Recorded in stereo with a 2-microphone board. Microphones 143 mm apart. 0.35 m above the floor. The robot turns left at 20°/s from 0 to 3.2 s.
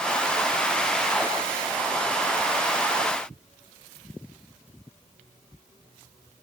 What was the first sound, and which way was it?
Only background noise.